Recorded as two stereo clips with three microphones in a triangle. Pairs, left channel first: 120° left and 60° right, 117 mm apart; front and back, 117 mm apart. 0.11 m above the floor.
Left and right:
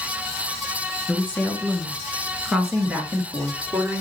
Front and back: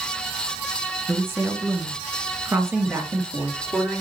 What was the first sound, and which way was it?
A woman speaking, 150° left.